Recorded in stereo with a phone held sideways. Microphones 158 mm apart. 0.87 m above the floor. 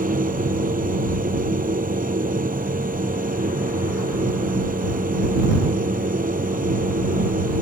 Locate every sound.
0.0 s a machine running: 60° right (ahead or behind)